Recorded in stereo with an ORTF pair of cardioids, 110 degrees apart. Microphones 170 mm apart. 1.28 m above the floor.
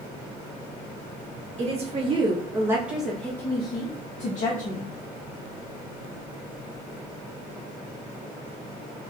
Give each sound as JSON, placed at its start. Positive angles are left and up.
{"t": 1.6, "sound": "a woman speaking", "azimuth_deg": -40, "distance_m": 1.5}